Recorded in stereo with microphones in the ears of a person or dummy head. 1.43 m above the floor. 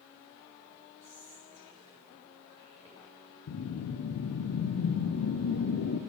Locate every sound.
1.0 s whispering: 35° right (ahead or behind), 3 m
3.5 s a whoosh: 80° left, 0.5 m